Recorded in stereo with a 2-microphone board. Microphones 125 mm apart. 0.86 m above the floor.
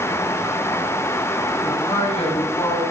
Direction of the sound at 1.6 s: 50° left (ahead or behind).